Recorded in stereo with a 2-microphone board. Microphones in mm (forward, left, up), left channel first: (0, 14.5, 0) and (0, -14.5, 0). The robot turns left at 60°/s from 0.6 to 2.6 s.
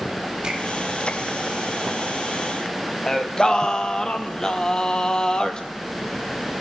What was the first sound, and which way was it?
A finger snap, 40° right (ahead or behind).